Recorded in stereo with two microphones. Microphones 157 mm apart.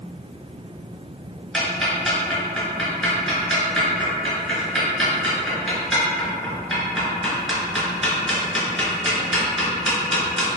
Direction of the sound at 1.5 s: Centre (ahead or behind).